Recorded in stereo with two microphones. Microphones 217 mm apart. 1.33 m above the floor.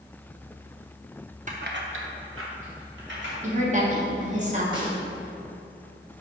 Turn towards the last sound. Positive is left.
turn(degrees=-20)  # may be behind; listen again after turning